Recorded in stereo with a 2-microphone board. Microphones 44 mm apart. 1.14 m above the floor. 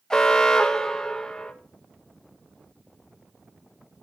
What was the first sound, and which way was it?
An alarm, 15° left (ahead or behind).